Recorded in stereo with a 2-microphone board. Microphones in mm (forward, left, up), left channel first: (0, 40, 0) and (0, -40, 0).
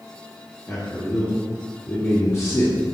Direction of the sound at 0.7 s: 35° left (ahead or behind).